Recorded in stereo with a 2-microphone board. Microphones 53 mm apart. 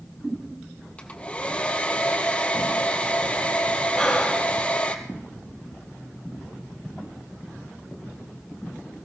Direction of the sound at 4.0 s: 5° left (ahead or behind).